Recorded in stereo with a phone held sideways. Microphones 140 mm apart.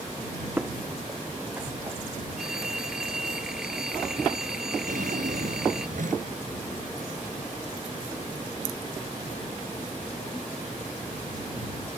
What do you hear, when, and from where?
0.6 s footsteps: 10° right (ahead or behind); by 2.0 s 15° right (ahead or behind)
2.4 s a phone ringing: 5° right (ahead or behind)
4.9 s a drawer: 70° right (ahead or behind)